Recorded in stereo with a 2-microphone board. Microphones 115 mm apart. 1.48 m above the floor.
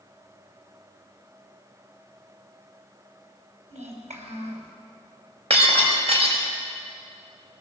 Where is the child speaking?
75° right (ahead or behind), 6 m.